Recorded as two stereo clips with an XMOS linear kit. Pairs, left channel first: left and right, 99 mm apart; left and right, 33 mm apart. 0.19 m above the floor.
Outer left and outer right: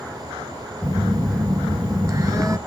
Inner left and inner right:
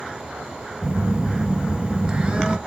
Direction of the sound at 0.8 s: 35° right (ahead or behind).